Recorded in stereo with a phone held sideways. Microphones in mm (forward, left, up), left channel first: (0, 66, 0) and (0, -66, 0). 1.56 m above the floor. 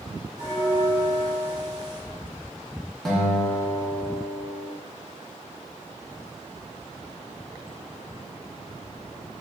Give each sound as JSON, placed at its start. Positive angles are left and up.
{"t": 0.4, "sound": "a bell", "side_deg": -25, "distance_m": 2.0}
{"t": 3.0, "sound": "a guitar", "side_deg": 5, "distance_m": 0.9}